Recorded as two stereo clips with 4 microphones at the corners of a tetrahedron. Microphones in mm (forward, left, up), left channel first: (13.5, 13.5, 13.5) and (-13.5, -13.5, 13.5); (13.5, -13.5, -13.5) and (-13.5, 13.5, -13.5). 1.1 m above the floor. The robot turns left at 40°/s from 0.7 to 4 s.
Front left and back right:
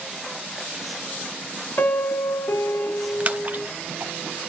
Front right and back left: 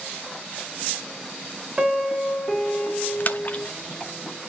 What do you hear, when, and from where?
1.8 s a piano: 70° left, 0.9 m; by 3.7 s 5° right, 0.9 m
3.2 s a splash: 80° right, 0.9 m; by 4.1 s 110° right, 0.9 m